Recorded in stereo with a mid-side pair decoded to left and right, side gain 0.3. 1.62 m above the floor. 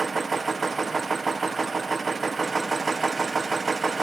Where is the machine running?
45° right, 1.0 m.